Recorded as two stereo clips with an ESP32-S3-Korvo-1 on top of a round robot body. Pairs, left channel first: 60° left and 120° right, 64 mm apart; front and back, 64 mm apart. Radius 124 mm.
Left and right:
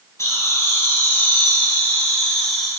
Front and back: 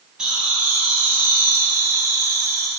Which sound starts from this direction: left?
Laughter, at 0.2 s.